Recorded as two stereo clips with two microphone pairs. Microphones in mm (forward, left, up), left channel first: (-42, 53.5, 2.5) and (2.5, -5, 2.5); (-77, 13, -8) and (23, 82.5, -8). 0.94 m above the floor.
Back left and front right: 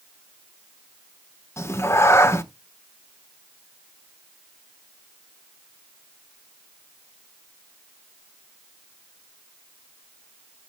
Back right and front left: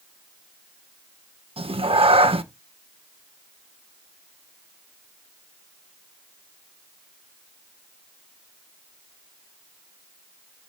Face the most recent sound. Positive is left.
turn(degrees=75)